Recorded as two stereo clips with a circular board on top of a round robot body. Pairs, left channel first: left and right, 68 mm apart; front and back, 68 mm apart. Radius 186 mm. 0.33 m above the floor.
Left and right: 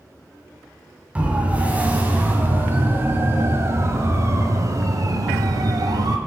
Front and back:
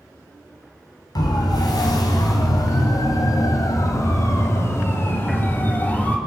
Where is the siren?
20° right, 4 m; by 6.2 s 65° right, 3 m.